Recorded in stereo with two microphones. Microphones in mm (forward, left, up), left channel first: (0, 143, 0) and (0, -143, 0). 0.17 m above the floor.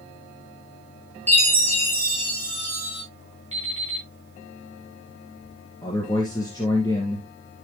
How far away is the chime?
About 5.5 m.